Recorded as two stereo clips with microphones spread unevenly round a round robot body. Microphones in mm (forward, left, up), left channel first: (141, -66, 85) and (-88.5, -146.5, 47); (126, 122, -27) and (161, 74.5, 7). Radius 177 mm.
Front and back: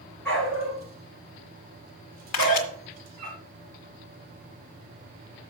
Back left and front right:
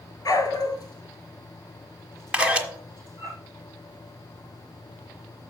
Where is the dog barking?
105° left, 1.4 m; by 3.3 s 170° left, 2.5 m.